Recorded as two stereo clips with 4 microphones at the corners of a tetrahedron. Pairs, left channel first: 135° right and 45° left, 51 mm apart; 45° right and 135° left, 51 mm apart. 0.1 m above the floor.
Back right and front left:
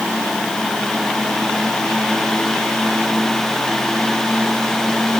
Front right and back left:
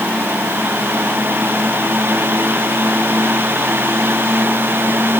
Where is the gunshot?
No gunshot in this recording.